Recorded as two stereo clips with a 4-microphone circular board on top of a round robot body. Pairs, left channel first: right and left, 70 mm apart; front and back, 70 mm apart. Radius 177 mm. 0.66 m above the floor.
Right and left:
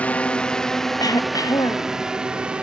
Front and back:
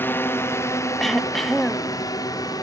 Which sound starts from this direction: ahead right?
A drone, at 0.0 s.